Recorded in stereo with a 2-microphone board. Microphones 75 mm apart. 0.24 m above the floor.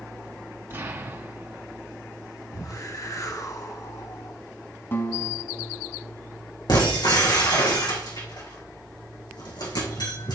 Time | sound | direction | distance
0.7 | an explosion | 30° right (ahead or behind) | 2 m
2.5 | a whoosh | 50° left (ahead or behind) | 1.5 m
4.9 | a guitar | 30° left (ahead or behind) | 1.2 m
6.7 | breaking glass | 70° left (ahead or behind) | 5 m